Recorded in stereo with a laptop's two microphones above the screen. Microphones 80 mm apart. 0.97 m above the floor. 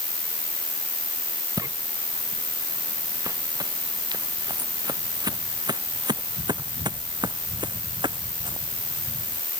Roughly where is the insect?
Right.